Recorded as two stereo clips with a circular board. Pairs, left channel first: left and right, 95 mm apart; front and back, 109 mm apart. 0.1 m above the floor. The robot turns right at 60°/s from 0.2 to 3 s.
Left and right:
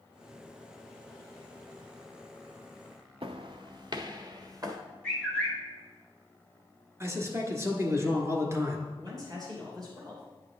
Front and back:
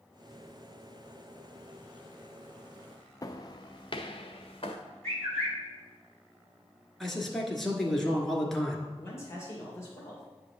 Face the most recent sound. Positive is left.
turn(degrees=-55)